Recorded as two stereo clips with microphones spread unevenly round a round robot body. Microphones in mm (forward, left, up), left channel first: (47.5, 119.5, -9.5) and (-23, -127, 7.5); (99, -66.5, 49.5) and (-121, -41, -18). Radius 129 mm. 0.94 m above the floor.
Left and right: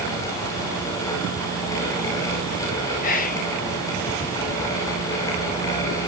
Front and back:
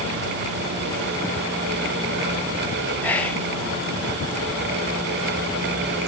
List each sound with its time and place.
3.0 s whispering: 95° left, 0.6 m